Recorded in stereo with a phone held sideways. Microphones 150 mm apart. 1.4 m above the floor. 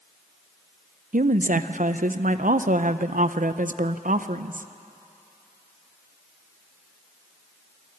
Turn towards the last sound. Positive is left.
turn(degrees=-60)  # may be behind; listen again after turning